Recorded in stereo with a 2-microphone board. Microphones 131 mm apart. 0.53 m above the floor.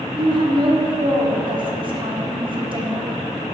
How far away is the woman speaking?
About 0.9 m.